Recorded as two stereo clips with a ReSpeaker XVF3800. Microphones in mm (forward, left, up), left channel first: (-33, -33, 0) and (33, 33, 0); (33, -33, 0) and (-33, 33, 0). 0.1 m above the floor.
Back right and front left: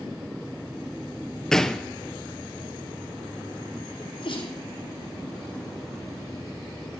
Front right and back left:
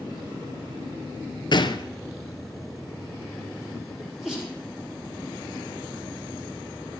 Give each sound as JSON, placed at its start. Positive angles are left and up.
{"t": 1.5, "sound": "a gunshot", "azimuth_deg": -50, "distance_m": 0.7}
{"t": 4.0, "sound": "a sneeze", "azimuth_deg": -135, "distance_m": 4.5}